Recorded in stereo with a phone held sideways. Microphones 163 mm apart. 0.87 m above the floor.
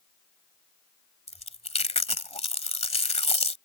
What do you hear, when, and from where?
1.3 s chewing: 40° left (ahead or behind)